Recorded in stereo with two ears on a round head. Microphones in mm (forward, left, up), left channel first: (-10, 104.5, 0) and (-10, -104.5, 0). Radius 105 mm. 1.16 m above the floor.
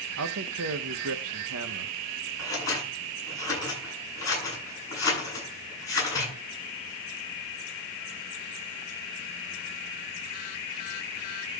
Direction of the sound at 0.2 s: 70° right (ahead or behind).